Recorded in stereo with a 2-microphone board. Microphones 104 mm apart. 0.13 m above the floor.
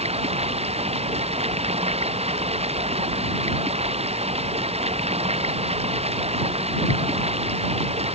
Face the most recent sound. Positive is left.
turn(degrees=-75)  # may be behind; listen again after turning